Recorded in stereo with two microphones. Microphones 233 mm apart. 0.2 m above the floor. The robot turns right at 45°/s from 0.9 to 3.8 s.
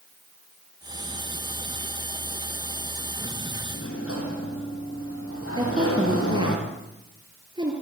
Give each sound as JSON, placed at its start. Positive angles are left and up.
{"t": 3.7, "sound": "a sliding door", "side_deg": 70, "distance_m": 5.5}
{"t": 5.6, "sound": "a woman speaking", "side_deg": -20, "distance_m": 4.5}